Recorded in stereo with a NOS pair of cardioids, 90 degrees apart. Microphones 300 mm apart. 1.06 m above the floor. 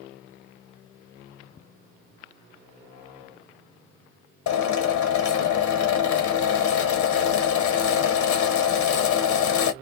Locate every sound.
4.5 s a drill: 65° left, 0.9 m